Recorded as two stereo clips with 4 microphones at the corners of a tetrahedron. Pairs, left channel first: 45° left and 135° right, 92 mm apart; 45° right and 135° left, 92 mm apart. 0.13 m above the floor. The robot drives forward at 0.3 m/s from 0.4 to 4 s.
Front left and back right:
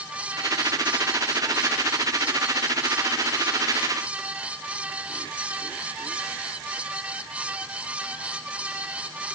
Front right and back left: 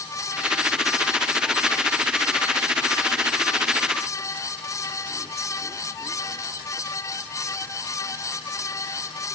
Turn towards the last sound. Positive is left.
No sound to turn to.